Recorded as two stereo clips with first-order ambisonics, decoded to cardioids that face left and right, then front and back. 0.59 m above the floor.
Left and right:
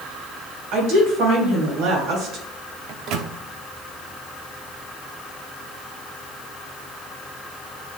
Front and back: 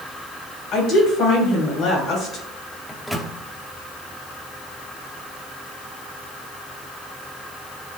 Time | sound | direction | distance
0.7 | a woman speaking | 60° right | 3.5 m
2.9 | a microwave | 90° right | 0.7 m